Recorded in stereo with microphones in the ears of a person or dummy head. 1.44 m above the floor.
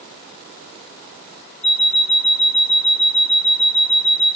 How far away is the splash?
I don't hear a splash.